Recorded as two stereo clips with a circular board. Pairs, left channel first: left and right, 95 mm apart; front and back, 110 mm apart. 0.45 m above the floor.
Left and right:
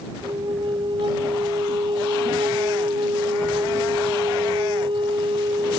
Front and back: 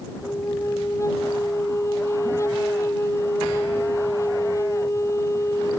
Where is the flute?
60° right.